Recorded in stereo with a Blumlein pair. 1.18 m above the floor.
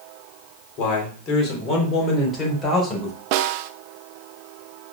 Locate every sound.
0.8 s a man speaking: 40° left, 4 m; by 3.2 s 15° left, 5.5 m
3.3 s a snare drum: 45° right, 0.8 m